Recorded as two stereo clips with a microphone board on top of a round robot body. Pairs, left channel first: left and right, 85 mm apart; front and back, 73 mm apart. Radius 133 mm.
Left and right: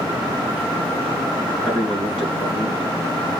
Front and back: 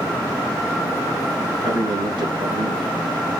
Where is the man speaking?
160° left, 6 m.